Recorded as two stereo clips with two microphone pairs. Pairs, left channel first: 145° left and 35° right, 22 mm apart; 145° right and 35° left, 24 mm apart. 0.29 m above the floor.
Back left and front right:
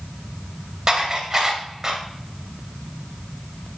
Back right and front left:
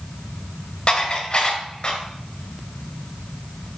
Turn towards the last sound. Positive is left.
turn(degrees=-90)